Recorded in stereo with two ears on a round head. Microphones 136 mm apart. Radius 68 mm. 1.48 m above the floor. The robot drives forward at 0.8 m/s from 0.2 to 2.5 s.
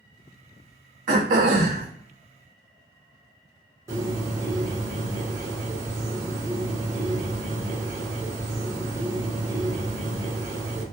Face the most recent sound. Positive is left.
turn(degrees=-25)  # may be behind; listen again after turning